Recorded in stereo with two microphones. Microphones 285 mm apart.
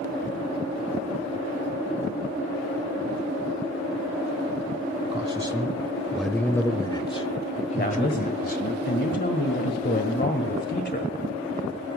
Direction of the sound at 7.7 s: 35° left (ahead or behind).